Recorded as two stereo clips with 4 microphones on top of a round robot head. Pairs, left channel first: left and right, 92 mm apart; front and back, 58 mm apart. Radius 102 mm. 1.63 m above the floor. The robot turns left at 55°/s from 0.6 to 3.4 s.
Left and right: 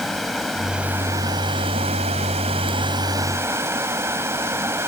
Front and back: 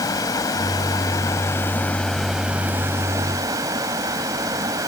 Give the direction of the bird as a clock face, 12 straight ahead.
I don't hear a bird.